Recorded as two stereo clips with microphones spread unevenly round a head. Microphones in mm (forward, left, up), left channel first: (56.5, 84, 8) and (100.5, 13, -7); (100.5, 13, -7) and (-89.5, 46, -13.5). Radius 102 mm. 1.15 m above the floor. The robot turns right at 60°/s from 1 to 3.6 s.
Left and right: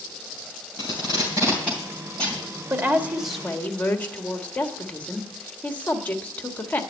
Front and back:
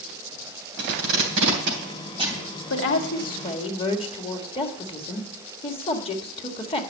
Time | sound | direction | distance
0.8 | tape being pulled | 165° left | 3 m
2.7 | a woman speaking | 5° right | 1.7 m